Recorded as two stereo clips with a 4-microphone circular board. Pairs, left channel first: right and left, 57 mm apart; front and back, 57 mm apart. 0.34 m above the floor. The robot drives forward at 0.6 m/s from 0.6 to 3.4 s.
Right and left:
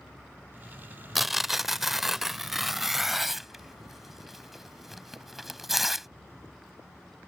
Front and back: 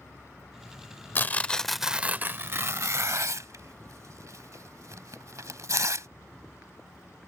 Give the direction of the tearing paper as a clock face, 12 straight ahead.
12 o'clock.